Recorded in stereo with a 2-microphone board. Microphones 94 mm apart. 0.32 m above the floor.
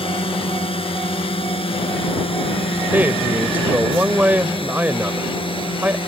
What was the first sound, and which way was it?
A drone, 70° left (ahead or behind).